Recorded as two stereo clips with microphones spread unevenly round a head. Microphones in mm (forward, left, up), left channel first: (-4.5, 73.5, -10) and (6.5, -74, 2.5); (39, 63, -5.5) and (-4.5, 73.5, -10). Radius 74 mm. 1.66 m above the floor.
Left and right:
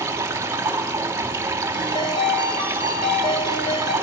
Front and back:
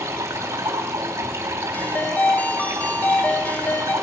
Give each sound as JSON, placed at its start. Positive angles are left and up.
{"t": 0.0, "sound": "running water", "azimuth_deg": -160, "distance_m": 3.5}
{"t": 1.7, "sound": "a ringtone", "azimuth_deg": 30, "distance_m": 4.5}